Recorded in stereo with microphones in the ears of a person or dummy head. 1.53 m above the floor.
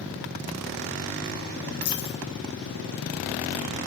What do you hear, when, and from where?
1.8 s a dropped coin: 60° left (ahead or behind), 4.5 m